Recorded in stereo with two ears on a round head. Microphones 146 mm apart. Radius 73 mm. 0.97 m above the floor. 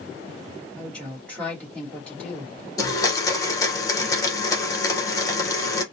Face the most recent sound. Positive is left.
turn(degrees=20)  # may be behind; listen again after turning